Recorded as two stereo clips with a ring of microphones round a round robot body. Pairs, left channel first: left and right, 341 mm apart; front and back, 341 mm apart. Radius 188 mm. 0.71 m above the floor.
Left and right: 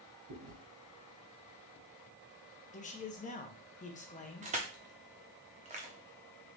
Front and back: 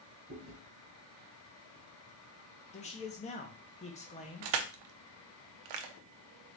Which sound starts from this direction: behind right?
Chewing, at 0.3 s.